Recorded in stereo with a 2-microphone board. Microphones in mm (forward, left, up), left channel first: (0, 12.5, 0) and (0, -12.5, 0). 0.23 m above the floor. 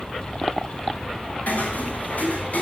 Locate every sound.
1.5 s footsteps: 70° left (ahead or behind), 5 m; by 2.6 s 65° left (ahead or behind), 6 m